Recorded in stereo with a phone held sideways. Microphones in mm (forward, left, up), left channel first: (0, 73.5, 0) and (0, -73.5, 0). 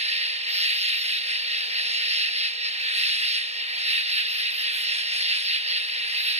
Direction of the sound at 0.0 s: 45° right (ahead or behind).